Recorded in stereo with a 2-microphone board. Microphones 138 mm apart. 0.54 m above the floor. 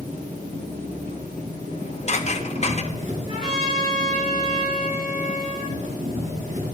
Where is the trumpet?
40° right (ahead or behind), 3 m.